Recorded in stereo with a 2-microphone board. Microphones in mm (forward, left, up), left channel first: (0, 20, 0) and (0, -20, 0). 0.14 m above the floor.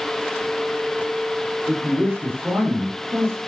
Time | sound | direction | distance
1.7 | a man speaking | 55° right (ahead or behind) | 7.5 m